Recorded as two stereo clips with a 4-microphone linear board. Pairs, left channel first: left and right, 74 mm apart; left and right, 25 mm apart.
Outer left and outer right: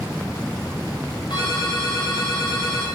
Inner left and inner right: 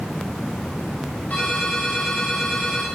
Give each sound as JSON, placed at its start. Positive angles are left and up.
{"t": 1.3, "sound": "a ringtone", "side_deg": 80, "distance_m": 7.5}